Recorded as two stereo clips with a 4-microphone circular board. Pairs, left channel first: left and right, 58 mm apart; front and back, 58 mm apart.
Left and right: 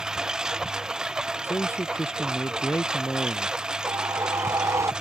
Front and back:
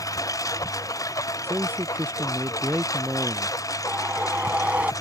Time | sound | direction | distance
0.0 | a lawn mower | 10° right | ?
1.4 | a man speaking | 130° left | ?
3.9 | a whoosh | 115° right | ?